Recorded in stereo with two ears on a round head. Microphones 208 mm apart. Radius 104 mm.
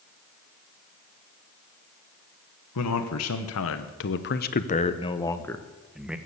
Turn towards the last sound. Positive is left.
turn(degrees=-5)  # may be behind; listen again after turning